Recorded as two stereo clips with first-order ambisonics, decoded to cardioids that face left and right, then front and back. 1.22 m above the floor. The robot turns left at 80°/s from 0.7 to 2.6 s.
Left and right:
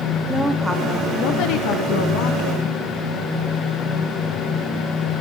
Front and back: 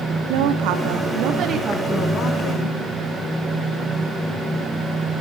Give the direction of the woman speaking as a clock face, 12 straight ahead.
6 o'clock.